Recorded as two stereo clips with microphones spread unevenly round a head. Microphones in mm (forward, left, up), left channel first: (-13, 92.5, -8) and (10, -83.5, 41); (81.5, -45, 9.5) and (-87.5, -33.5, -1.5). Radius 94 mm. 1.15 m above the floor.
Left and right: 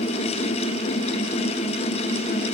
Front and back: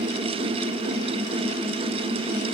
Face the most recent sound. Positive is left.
No sound to turn to.